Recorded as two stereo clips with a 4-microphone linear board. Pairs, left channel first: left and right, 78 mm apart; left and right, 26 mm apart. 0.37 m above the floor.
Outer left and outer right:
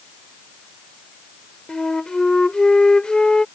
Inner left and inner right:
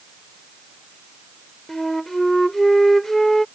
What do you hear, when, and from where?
1.7 s a flute: 10° left (ahead or behind)